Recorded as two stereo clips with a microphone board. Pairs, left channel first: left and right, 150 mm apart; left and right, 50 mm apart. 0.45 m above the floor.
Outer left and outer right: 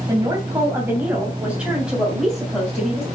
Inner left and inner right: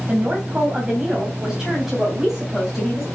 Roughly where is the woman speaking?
Right.